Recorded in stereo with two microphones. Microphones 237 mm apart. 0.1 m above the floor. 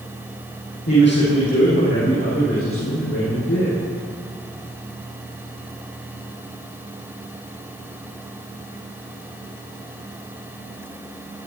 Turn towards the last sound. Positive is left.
turn(degrees=75)  # may be behind; listen again after turning